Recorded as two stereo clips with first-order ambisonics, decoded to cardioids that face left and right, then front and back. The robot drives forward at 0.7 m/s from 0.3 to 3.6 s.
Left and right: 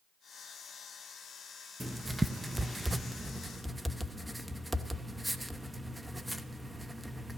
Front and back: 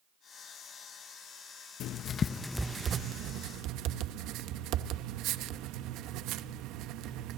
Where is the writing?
10° right, 0.8 m; by 7.4 s 175° right, 0.9 m.